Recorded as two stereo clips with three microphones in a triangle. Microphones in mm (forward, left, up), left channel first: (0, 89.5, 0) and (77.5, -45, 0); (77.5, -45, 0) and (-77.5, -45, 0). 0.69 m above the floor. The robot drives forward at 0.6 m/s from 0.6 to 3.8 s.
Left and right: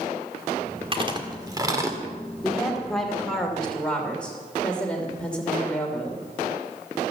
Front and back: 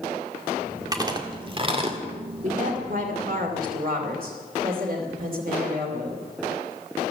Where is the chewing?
115° right, 1.8 m; by 2.0 s 130° right, 2 m.